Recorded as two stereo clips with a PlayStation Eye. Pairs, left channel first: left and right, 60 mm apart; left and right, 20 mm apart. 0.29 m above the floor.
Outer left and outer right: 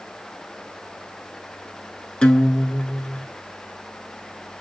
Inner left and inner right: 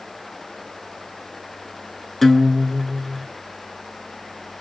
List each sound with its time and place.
2.2 s a guitar: 15° left (ahead or behind), 0.6 m